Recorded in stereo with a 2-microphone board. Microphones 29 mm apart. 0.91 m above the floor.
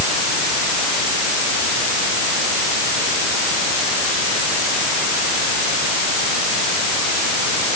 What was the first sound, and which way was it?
Only background noise.